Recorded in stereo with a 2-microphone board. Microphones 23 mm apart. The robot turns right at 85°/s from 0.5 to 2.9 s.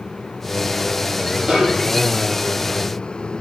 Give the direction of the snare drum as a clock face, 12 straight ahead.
2 o'clock.